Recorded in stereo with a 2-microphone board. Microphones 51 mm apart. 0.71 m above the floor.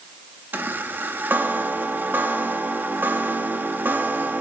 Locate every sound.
0.5 s a chime: 40° right (ahead or behind), 1.2 m